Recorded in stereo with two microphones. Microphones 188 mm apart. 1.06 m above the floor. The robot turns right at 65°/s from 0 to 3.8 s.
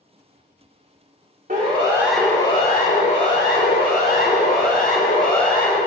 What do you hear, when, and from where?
1.5 s a siren: 50° right (ahead or behind), 3.5 m; by 5.8 s 50° left (ahead or behind), 6 m